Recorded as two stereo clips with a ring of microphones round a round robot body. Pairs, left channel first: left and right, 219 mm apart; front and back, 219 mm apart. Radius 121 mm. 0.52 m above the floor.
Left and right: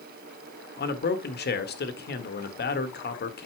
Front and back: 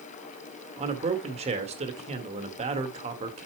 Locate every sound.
0.8 s a man speaking: 120° left, 1.5 m